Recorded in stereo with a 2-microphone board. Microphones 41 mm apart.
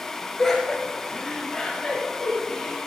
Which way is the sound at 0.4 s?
10° left (ahead or behind).